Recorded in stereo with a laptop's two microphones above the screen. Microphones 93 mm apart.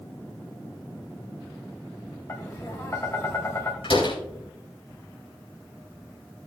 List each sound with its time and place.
2.3 s tapping: 30° left (ahead or behind), 1.5 m
3.8 s a door slam: 75° left (ahead or behind), 4 m